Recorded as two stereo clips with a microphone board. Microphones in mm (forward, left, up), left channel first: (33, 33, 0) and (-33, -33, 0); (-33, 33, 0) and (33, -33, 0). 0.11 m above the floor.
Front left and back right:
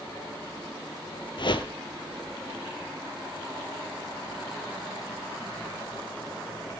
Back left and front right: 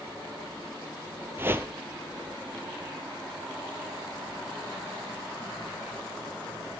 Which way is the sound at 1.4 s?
20° left.